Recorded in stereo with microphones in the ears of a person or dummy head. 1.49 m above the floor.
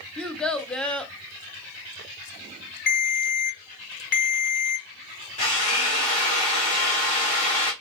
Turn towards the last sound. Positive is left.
turn(degrees=40)  # may be behind; listen again after turning